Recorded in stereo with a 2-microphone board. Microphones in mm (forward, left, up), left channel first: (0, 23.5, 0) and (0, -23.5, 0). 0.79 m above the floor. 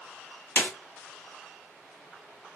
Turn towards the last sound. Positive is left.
turn(degrees=45)  # may be behind; listen again after turning